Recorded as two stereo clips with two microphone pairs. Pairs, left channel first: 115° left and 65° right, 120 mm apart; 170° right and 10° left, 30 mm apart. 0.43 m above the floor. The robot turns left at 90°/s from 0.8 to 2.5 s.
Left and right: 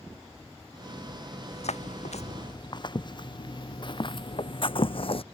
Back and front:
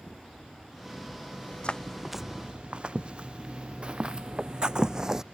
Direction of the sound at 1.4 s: 165° left.